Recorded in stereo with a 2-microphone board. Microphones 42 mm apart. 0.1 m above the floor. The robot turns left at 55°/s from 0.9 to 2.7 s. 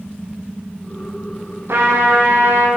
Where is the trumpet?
65° right, 9 m; by 2.7 s 120° right, 9 m.